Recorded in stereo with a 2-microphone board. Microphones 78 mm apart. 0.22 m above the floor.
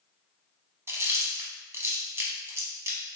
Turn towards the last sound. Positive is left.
turn(degrees=-35)  # may be behind; listen again after turning